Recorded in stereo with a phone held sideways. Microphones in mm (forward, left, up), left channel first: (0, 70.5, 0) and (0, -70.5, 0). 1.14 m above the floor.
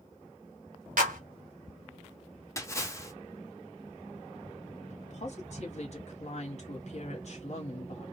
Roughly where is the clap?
Right.